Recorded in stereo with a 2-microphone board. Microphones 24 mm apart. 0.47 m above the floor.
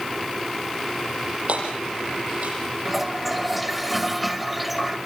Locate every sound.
1.5 s hammering: 65° right (ahead or behind), 7.5 m
2.9 s a toilet flushing: 5° right (ahead or behind), 1.9 m